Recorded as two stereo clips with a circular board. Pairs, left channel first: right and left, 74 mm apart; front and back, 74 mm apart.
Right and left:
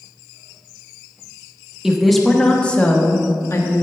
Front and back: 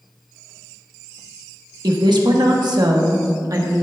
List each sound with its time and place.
1.8 s a woman speaking: 170° left, 1.1 m; by 3.8 s 135° right, 1.3 m